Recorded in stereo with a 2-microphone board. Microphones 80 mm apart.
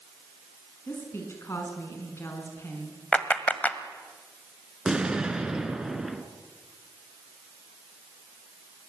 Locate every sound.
0.9 s a woman speaking: 35° left (ahead or behind), 5.5 m
3.1 s a clap: 20° left (ahead or behind), 1.5 m
4.8 s an explosion: 10° right (ahead or behind), 1.3 m